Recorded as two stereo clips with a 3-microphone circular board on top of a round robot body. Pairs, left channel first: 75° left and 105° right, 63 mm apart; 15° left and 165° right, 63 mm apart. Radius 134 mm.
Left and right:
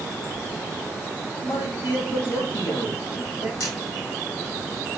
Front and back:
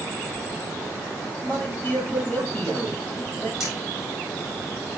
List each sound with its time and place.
1.4 s a man speaking: 80° left, 6 m
3.6 s a camera shutter: 110° left, 5 m